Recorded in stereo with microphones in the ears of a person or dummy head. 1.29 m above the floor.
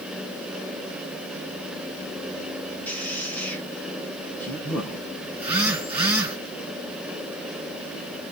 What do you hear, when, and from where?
2.9 s a man speaking: 5° left (ahead or behind), 1.0 m
5.3 s a phone buzzing: 10° right (ahead or behind), 2 m